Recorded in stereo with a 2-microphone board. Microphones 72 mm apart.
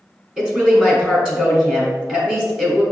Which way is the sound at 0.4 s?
10° right (ahead or behind).